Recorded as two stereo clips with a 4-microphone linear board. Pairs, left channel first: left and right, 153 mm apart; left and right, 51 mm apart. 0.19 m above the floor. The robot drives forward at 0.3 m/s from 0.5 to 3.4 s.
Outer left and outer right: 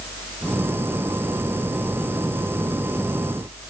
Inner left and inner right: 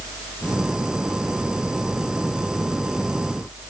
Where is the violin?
No violin in this recording.